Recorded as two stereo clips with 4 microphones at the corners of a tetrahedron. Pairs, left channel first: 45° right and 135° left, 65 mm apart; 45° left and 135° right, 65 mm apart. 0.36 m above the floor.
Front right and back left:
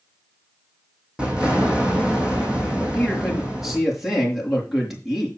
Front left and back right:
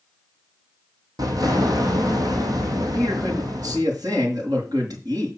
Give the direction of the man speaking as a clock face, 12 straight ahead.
5 o'clock.